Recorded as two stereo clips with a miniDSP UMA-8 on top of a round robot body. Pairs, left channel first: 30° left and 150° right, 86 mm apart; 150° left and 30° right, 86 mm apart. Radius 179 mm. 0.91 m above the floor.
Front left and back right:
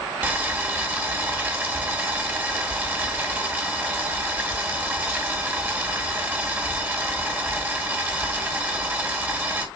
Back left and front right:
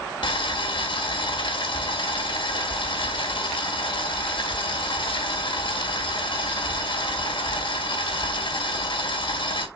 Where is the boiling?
140° left, 1.9 m.